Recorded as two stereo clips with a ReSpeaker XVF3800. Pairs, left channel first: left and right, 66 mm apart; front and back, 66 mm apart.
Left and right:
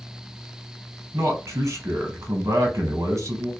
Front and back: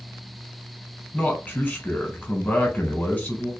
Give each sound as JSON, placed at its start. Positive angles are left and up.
{"t": 1.1, "sound": "a man speaking", "azimuth_deg": -60, "distance_m": 1.0}